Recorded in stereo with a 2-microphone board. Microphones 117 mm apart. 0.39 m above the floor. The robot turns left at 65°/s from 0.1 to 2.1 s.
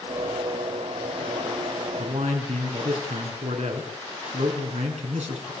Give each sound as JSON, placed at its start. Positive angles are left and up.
{"t": 2.0, "sound": "a man speaking", "side_deg": -75, "distance_m": 5.0}